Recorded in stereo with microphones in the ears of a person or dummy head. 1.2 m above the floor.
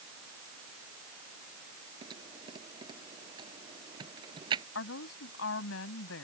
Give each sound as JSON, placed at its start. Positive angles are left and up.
{"t": 2.0, "sound": "typing on a keyboard", "side_deg": -35}
{"t": 4.8, "sound": "a woman speaking", "side_deg": 80}